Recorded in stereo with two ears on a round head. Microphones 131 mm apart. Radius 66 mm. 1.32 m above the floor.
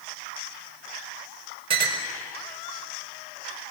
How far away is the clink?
About 4.5 m.